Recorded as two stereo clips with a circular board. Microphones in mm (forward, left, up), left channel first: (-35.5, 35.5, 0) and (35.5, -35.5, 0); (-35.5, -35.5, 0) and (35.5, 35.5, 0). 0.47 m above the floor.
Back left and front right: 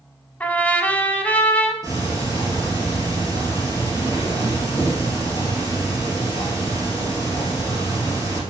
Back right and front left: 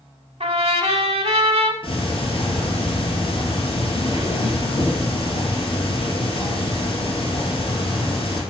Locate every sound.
0.4 s a trumpet: 60° left, 0.7 m
1.8 s ticking: 100° right, 2.5 m